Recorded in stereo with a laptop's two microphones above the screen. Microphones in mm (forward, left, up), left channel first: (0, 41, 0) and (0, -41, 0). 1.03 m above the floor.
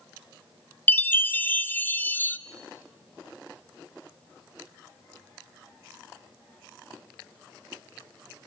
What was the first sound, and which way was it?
A chime, 20° left (ahead or behind).